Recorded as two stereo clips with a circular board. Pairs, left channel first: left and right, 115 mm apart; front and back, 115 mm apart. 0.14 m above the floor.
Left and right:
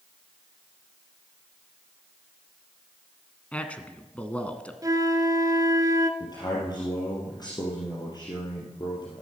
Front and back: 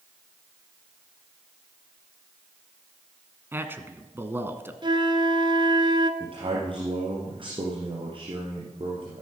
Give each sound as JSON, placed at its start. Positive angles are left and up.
{"t": 3.5, "sound": "a man speaking", "azimuth_deg": 150, "distance_m": 1.1}
{"t": 4.8, "sound": "a flute", "azimuth_deg": -145, "distance_m": 0.8}
{"t": 6.2, "sound": "a man speaking", "azimuth_deg": 140, "distance_m": 3.0}